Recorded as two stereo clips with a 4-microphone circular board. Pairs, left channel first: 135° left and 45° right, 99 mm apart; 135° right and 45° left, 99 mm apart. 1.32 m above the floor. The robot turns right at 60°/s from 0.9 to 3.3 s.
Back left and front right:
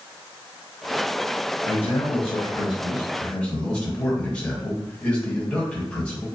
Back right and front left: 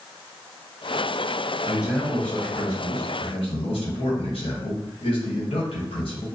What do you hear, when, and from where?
1.6 s a man speaking: 115° left, 1.1 m; by 6.3 s 145° right, 1.1 m